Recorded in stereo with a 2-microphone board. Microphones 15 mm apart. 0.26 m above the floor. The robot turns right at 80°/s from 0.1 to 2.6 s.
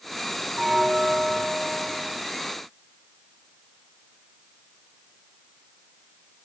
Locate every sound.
0.6 s a bell: 120° right, 0.8 m; by 2.2 s 10° left, 0.8 m